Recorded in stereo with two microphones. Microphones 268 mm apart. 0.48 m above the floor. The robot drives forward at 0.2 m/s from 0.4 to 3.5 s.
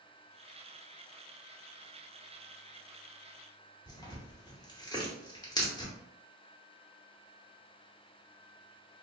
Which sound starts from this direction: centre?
Tearing paper, at 3.9 s.